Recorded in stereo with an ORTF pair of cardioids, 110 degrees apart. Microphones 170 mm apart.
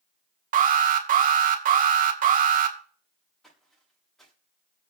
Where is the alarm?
50° right, 2.0 m.